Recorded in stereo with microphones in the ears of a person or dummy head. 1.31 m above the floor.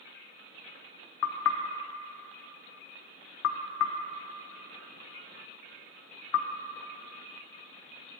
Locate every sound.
1.2 s knocking: 75° left (ahead or behind), 0.5 m